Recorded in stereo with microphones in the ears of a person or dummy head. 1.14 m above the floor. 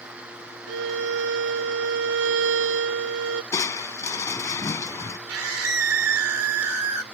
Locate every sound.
0.7 s a violin: 75° right (ahead or behind)
3.5 s crushing: 15° left (ahead or behind)
5.3 s a scream: 80° right